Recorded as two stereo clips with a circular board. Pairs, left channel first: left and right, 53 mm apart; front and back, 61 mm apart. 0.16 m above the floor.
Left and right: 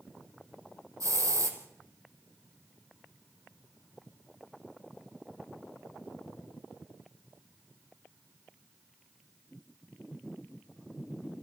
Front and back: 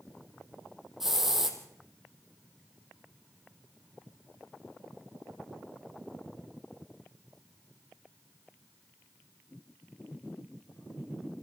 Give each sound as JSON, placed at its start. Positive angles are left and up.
{"t": 1.0, "sound": "a hiss", "azimuth_deg": -95, "distance_m": 3.5}